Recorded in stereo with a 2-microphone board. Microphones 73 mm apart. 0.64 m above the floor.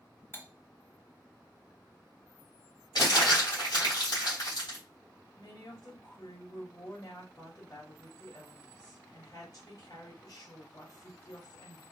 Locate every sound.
0.3 s cutlery clinking: 30° left (ahead or behind), 0.7 m
3.0 s crumpling: 60° left (ahead or behind), 2.5 m
5.4 s a woman speaking: 50° left (ahead or behind), 2.5 m